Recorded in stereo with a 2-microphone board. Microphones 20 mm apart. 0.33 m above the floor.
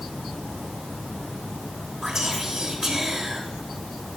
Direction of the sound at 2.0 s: 20° right (ahead or behind).